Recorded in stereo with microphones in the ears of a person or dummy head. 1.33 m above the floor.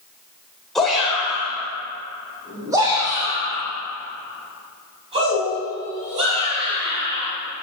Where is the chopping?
I don't hear chopping.